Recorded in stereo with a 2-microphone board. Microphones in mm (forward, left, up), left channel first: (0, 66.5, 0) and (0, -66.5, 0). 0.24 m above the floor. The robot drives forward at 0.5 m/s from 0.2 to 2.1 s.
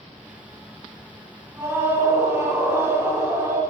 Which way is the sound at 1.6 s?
15° right (ahead or behind).